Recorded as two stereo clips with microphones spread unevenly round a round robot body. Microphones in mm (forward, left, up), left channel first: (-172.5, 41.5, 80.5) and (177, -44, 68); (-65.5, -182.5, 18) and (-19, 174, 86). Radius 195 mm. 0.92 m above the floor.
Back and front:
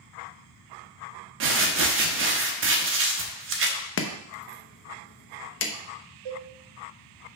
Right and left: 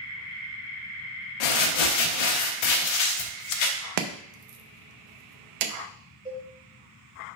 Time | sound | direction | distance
1.4 | crumpling | 75° right | 0.9 m
4.0 | chopping | 105° left | 0.7 m
6.2 | a cowbell | straight ahead | 1.9 m